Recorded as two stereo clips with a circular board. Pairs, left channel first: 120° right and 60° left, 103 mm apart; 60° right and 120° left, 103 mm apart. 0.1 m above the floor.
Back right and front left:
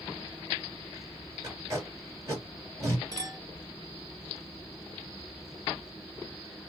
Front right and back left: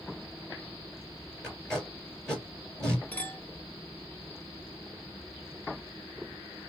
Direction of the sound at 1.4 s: 20° left.